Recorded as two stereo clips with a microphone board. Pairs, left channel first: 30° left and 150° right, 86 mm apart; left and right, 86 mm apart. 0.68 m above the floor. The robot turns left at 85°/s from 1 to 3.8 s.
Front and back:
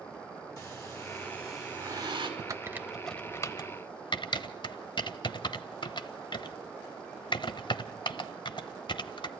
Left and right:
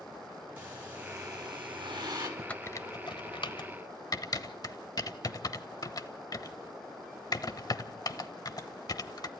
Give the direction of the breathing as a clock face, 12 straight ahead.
1 o'clock.